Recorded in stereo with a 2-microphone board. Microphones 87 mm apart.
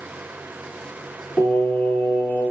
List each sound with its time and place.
1.4 s singing: 25° left (ahead or behind), 1.6 m